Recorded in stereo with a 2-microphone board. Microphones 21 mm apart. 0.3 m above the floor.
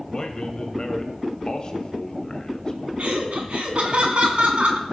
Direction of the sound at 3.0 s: 60° right (ahead or behind).